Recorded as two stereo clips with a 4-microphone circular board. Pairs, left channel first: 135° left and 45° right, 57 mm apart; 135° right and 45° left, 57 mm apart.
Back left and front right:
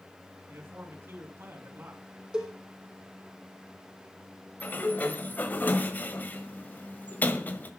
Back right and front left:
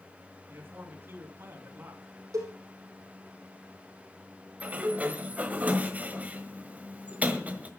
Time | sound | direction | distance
0.5 | a man speaking | 5° left | 3.5 m
2.3 | a cowbell | 30° left | 4 m
4.6 | a sliding door | 90° left | 1.4 m